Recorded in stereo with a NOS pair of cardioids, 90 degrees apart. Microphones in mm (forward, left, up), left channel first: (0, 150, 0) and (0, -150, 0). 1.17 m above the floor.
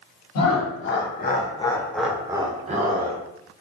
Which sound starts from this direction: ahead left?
Laughter, at 0.3 s.